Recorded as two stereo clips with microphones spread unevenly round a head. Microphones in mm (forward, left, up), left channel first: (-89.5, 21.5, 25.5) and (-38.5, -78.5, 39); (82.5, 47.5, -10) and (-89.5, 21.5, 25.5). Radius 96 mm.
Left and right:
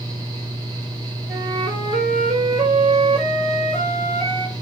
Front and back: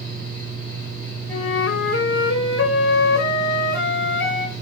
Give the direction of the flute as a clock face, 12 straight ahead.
1 o'clock.